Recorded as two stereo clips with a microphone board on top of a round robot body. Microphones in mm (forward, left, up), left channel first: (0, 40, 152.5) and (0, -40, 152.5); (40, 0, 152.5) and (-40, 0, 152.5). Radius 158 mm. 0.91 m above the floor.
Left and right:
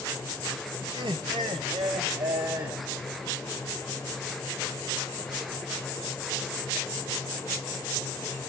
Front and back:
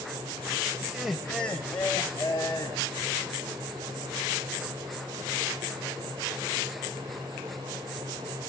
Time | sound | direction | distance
0.8 | laughter | 110° right | 0.8 m